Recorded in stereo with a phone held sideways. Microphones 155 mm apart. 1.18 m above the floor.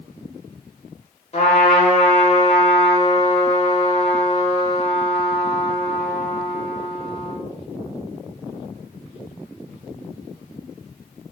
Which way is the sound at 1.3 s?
40° left (ahead or behind).